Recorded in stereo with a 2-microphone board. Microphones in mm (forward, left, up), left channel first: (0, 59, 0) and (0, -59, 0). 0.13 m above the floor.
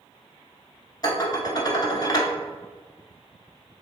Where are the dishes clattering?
35° left (ahead or behind), 1.0 m.